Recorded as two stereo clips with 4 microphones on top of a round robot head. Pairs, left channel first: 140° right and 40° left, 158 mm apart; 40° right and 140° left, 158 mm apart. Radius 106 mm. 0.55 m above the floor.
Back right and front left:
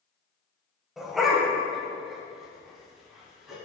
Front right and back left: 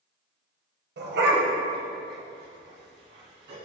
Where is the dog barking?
125° left, 1.4 m.